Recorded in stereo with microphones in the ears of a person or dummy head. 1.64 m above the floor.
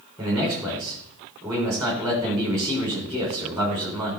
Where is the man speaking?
15° right (ahead or behind), 5.5 m.